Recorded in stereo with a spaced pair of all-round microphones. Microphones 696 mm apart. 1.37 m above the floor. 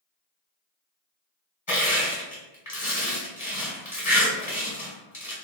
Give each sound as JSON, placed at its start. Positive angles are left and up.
{"t": 1.7, "sound": "crushing", "side_deg": 25, "distance_m": 1.8}